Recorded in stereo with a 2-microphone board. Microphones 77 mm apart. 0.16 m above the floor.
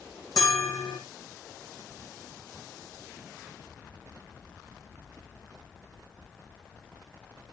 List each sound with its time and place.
0.4 s a bell: 55° left (ahead or behind), 2.5 m